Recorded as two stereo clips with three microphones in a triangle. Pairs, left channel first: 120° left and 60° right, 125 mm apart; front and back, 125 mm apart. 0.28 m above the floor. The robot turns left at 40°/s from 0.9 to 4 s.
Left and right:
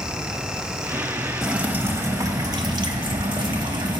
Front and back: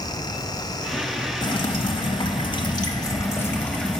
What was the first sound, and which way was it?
Dripping, 20° left.